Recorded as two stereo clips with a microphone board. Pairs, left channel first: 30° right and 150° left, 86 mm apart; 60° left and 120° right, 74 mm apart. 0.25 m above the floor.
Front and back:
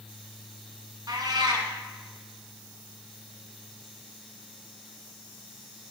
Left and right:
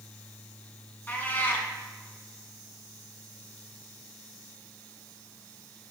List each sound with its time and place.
1.1 s a cat meowing: 120° left, 1.1 m